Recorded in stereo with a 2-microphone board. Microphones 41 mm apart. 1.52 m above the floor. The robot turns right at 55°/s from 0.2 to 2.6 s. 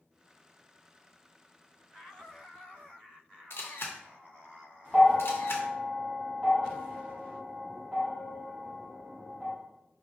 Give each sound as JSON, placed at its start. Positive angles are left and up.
{"t": 3.5, "sound": "a camera shutter", "side_deg": 70, "distance_m": 0.6}
{"t": 4.9, "sound": "a bell", "side_deg": -20, "distance_m": 1.2}